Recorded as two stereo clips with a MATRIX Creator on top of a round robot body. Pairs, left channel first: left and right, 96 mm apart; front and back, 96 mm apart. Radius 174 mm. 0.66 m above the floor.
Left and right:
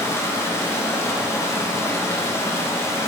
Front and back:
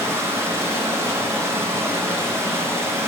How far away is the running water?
About 0.8 m.